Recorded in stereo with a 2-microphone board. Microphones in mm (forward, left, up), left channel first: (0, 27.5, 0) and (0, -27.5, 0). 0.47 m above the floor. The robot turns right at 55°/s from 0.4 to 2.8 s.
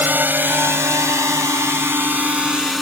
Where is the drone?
40° right (ahead or behind); by 2.8 s centre (ahead or behind).